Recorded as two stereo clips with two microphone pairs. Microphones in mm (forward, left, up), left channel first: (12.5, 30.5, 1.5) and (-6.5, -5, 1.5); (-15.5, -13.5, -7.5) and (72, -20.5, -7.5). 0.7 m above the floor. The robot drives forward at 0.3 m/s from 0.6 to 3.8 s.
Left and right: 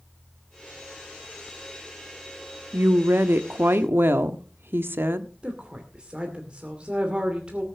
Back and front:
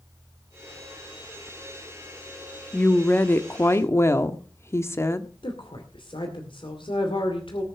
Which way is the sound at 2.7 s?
110° right.